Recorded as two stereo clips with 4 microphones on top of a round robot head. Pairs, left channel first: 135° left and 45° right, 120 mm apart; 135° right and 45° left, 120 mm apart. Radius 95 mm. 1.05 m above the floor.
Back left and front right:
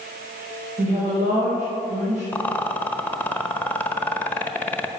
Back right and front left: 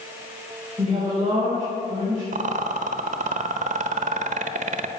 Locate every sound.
0.8 s a woman speaking: 15° right, 5 m
2.3 s a rattle: 60° left, 0.9 m